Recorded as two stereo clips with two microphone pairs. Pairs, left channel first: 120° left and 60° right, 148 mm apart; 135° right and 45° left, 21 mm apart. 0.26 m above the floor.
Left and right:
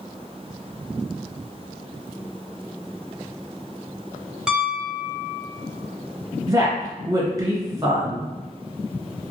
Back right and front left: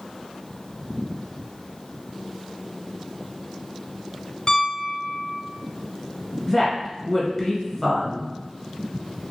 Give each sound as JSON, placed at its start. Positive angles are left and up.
{"t": 4.5, "sound": "a piano", "azimuth_deg": -145, "distance_m": 0.6}
{"t": 6.5, "sound": "a woman speaking", "azimuth_deg": -90, "distance_m": 1.0}